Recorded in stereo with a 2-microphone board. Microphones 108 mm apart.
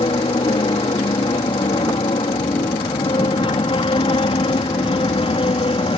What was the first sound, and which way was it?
An aircraft, 55° left (ahead or behind).